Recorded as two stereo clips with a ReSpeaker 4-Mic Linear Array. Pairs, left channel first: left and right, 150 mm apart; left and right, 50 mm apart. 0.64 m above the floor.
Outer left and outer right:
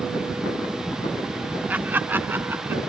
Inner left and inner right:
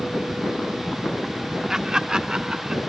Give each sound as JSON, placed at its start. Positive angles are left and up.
{"t": 1.7, "sound": "laughter", "side_deg": -10}